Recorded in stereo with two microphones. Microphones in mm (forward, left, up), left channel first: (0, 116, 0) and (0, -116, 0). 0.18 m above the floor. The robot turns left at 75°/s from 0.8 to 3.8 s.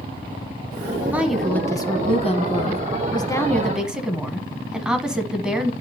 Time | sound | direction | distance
1.1 | a woman speaking | 5° right (ahead or behind) | 1.1 m